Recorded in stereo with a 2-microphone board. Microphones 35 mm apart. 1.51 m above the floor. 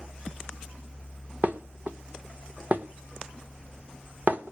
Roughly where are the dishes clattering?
Right.